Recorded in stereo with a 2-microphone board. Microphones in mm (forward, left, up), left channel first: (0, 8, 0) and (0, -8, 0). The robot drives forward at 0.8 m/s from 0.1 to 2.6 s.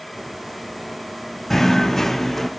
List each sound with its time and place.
1.5 s knocking: 15° left (ahead or behind), 0.6 m